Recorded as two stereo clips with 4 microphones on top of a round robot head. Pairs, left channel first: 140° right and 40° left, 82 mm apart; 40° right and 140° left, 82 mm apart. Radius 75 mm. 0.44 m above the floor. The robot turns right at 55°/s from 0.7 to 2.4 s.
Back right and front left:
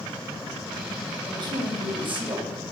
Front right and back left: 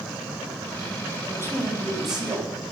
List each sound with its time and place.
1.2 s a woman speaking: 5° left, 4.5 m; by 2.5 s 70° left, 4.5 m